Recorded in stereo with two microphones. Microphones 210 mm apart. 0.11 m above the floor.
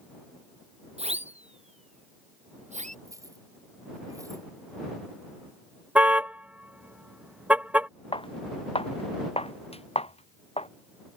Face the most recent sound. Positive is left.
turn(degrees=30)  # may be behind; listen again after turning